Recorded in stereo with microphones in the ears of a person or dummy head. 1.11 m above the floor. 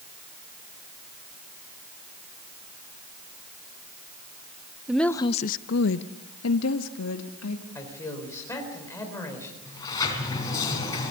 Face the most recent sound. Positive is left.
turn(degrees=20)  # may be behind; listen again after turning